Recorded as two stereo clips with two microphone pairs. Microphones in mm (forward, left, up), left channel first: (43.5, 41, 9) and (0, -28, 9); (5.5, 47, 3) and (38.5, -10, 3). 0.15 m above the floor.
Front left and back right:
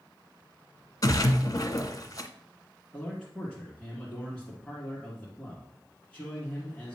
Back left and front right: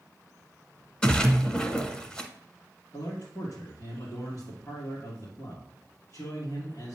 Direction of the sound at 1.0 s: 50° left.